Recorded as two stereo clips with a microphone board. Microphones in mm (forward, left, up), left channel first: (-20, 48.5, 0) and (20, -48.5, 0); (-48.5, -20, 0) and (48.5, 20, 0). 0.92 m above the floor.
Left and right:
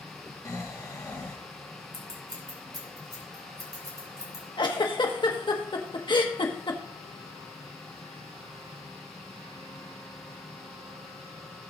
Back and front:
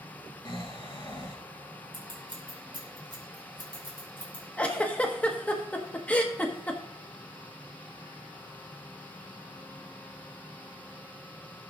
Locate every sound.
0.5 s snoring: 165° left, 1.9 m
1.9 s scissors: 20° right, 3.5 m
4.6 s a giggle: 130° left, 1.3 m